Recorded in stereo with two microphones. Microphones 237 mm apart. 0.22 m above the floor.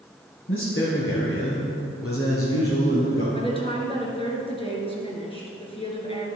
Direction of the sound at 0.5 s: 60° left (ahead or behind).